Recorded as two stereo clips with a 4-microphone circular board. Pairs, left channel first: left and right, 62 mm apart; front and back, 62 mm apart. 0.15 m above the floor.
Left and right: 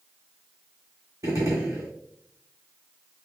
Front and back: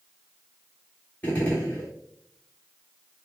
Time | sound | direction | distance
1.2 | a gunshot | 70° right | 1.7 m